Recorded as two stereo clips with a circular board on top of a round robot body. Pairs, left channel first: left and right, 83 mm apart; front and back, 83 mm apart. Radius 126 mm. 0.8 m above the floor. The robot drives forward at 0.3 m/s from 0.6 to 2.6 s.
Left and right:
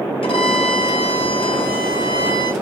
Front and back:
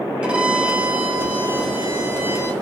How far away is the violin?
About 1.6 m.